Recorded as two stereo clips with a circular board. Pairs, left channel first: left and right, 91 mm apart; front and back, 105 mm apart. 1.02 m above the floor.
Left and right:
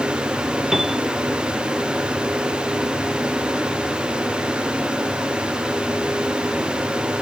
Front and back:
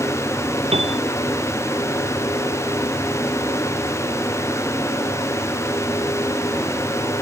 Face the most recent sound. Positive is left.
turn(degrees=-175)